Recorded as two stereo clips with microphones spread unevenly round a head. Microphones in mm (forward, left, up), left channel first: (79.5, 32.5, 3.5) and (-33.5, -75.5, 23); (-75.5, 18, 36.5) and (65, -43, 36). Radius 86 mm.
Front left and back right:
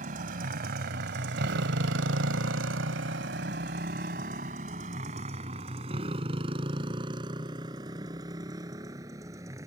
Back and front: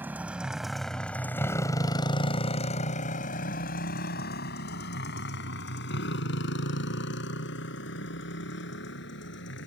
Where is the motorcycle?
100° right; by 9.7 s 150° left.